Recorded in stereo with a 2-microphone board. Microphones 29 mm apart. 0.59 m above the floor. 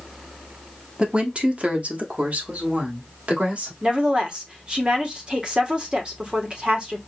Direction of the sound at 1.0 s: 40° right (ahead or behind).